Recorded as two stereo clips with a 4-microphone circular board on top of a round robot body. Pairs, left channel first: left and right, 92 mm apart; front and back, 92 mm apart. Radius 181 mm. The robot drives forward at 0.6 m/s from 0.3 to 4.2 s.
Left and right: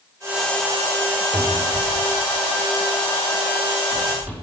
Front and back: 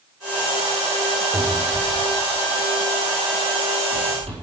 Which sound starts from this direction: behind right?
A cupboard door, at 1.3 s.